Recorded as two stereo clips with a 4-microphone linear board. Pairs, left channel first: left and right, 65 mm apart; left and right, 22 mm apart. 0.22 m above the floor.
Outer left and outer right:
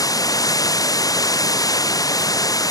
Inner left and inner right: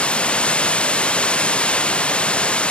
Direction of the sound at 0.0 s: 65° left (ahead or behind).